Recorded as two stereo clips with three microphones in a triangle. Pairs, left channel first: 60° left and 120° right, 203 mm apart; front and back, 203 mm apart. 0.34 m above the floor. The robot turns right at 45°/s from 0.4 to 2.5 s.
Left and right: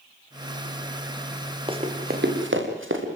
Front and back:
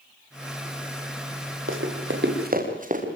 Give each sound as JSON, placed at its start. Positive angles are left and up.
{"t": 1.7, "sound": "running footsteps", "azimuth_deg": 175, "distance_m": 5.0}